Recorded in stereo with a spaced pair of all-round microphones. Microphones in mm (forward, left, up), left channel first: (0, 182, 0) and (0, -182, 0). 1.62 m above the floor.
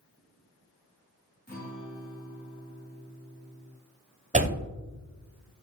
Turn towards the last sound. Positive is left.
turn(degrees=-20)  # may be behind; listen again after turning